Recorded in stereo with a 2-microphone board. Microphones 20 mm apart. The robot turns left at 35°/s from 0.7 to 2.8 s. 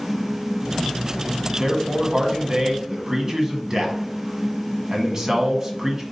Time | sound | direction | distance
1.6 | a man speaking | 25° right (ahead or behind) | 1.2 m